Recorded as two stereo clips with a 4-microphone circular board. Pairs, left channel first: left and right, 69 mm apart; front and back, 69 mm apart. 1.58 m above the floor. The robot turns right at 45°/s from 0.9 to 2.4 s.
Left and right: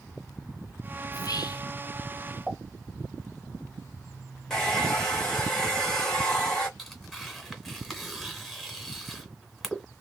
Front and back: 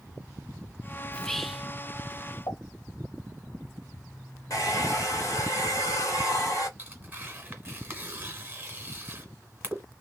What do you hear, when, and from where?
1.1 s whispering: 75° left, 0.6 m; by 1.7 s 100° left, 0.6 m
2.5 s a pop: 5° right, 2.5 m
4.5 s a hair dryer: 10° left, 1.9 m
6.8 s tearing paper: 175° right, 1.5 m